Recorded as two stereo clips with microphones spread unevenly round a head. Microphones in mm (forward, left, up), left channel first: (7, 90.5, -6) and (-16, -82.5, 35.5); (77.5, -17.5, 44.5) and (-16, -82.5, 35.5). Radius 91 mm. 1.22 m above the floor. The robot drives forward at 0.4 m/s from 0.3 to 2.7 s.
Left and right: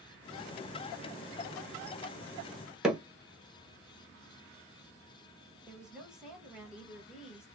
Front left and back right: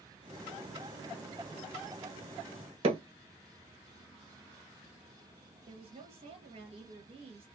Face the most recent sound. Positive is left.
turn(degrees=175)